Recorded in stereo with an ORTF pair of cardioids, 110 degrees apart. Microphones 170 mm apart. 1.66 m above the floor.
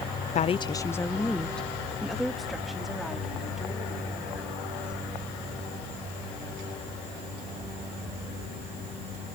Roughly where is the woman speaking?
Ahead left.